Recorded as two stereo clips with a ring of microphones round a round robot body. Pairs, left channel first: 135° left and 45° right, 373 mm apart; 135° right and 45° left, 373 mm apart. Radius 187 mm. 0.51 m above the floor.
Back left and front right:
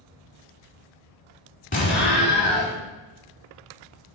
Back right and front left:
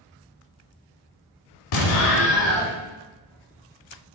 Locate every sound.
1.7 s an explosion: 155° right, 1.0 m